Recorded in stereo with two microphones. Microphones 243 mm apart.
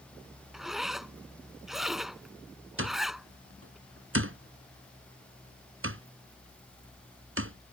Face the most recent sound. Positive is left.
turn(degrees=-60)  # may be behind; listen again after turning